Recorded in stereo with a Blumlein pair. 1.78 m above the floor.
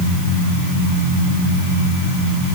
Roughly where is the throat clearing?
I don't hear throat clearing.